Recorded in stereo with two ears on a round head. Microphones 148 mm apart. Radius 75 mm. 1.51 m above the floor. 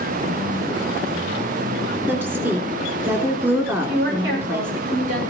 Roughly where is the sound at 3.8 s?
Right.